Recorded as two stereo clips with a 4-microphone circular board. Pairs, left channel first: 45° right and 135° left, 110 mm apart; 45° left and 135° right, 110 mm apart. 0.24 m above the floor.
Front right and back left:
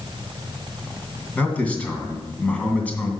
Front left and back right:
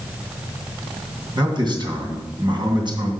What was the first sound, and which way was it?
A man speaking, 115° right.